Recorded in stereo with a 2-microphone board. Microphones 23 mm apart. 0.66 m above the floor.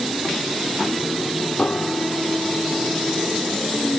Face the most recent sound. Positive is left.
turn(degrees=55)  # may be behind; listen again after turning